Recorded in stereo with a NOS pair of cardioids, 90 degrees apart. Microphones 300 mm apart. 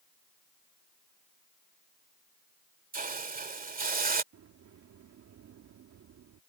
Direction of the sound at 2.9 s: 30° right.